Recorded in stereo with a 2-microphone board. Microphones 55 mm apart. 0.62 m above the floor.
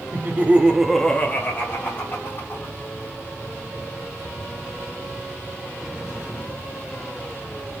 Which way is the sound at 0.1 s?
40° right (ahead or behind).